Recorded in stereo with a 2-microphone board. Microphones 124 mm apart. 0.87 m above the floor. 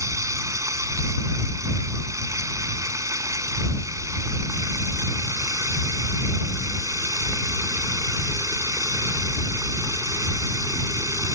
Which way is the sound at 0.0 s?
25° right (ahead or behind).